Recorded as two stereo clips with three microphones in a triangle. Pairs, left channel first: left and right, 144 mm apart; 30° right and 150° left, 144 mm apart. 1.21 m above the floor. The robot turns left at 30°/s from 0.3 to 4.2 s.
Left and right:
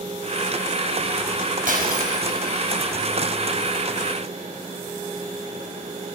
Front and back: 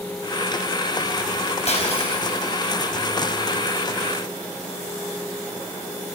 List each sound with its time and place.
1.7 s breaking glass: 70° right, 5 m; by 2.5 s 95° right, 5 m